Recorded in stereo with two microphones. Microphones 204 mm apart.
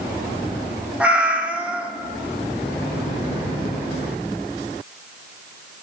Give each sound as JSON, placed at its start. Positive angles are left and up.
{"t": 1.0, "sound": "a cat meowing", "side_deg": -5, "distance_m": 0.8}